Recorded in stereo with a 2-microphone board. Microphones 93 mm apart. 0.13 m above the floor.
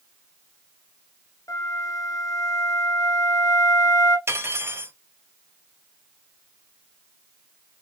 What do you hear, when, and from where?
1.5 s a flute: 40° left (ahead or behind), 1.2 m
4.3 s cutlery clinking: 30° right (ahead or behind), 1.4 m